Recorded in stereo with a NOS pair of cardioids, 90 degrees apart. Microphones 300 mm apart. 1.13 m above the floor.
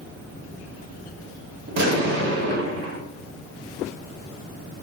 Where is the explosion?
60° right, 1.4 m.